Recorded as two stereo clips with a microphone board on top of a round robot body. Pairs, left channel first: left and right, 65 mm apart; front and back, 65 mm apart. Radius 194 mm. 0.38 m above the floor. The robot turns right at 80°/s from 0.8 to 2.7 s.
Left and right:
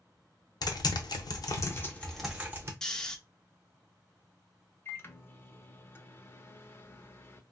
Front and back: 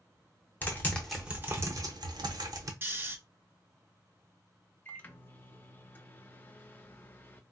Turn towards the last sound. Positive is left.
turn(degrees=50)